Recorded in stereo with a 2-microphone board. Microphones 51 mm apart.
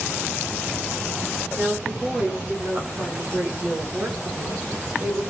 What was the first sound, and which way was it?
A woman speaking, 35° right (ahead or behind).